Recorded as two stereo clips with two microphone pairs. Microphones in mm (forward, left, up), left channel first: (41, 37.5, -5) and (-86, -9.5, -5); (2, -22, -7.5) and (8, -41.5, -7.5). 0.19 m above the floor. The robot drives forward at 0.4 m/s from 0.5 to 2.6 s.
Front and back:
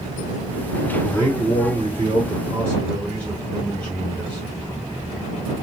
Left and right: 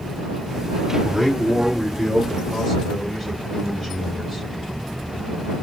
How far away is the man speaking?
About 2.0 m.